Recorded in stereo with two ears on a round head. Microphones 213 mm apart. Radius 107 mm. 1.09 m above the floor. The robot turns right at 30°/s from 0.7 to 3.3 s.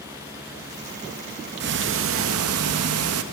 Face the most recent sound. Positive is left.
turn(degrees=-75)